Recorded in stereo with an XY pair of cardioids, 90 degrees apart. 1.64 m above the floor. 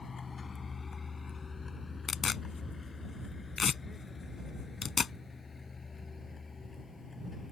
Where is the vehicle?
40° left; by 7.5 s 30° left.